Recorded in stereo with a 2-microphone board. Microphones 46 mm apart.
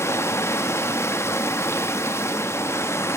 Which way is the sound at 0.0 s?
80° left.